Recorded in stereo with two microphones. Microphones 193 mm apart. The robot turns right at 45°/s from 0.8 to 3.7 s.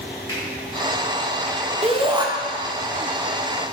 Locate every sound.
0.3 s a finger snap: 15° left (ahead or behind), 1.8 m
1.8 s a shout: 30° right (ahead or behind), 0.5 m; by 2.3 s 20° right (ahead or behind), 0.5 m